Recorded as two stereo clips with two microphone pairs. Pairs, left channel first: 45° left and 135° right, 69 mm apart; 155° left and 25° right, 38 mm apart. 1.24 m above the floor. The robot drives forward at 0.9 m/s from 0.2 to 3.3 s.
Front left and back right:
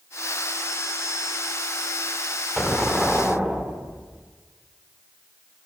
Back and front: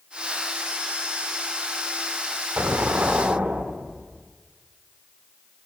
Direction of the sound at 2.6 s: 45° right.